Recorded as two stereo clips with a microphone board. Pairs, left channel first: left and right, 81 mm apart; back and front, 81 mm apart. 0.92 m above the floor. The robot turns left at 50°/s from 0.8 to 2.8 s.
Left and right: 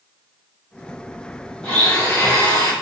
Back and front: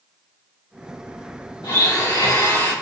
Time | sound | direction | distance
1.6 | a blender | 175° left | 1.6 m